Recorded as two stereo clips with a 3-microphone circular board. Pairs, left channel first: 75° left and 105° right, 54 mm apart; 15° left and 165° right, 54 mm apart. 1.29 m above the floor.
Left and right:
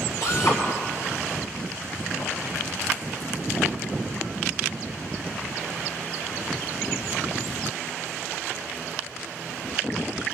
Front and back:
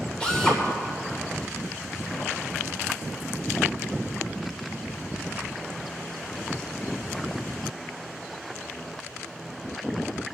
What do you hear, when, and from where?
0.2 s a drill: 85° left, 3 m